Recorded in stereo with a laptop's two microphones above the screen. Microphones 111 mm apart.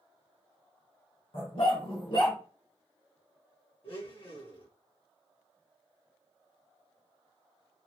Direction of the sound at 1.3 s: 60° left (ahead or behind).